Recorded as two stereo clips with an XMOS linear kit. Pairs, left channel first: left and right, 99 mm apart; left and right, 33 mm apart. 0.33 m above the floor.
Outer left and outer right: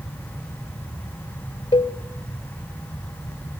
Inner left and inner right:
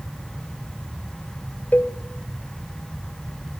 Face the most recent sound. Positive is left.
turn(degrees=65)  # may be behind; listen again after turning